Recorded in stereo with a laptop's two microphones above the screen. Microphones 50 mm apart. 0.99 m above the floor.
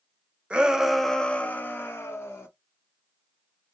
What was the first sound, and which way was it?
A shout, 25° right (ahead or behind).